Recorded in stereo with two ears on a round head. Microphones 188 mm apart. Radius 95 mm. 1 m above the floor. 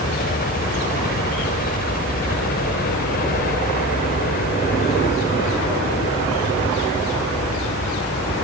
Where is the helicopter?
50° left (ahead or behind).